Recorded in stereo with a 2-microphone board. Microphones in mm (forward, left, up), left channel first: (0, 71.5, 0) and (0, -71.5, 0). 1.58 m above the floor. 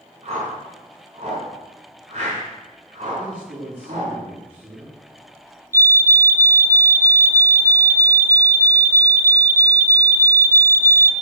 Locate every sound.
0.2 s a whoosh: 45° right (ahead or behind), 6.5 m
3.2 s a man speaking: 45° right (ahead or behind), 5 m
5.7 s a fire alarm: 20° right (ahead or behind), 0.9 m